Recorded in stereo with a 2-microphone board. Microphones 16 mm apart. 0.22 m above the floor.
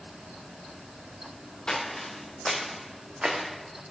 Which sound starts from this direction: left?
Footsteps, at 1.7 s.